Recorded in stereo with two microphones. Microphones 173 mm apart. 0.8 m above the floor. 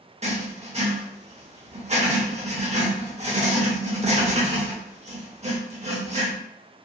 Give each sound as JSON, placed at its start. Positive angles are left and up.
{"t": 0.2, "sound": "writing", "side_deg": -35, "distance_m": 0.7}